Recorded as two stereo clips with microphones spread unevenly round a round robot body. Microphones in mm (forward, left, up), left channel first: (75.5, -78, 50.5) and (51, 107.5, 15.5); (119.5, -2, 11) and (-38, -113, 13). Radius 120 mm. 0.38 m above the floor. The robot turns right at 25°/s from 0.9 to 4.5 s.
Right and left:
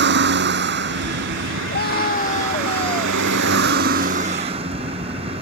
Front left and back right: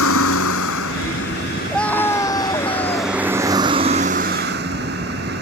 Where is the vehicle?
75° left; by 5.4 s 165° left.